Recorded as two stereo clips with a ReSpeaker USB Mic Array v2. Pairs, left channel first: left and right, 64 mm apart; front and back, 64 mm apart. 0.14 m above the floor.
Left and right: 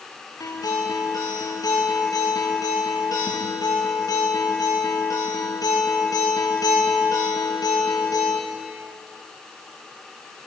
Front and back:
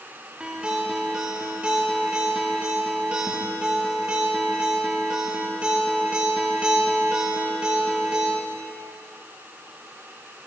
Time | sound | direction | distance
0.4 | a guitar | 105° left | 4.5 m